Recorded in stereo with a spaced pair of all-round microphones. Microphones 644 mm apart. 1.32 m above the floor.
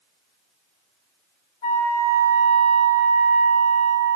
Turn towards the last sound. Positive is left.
turn(degrees=50)  # may be behind; listen again after turning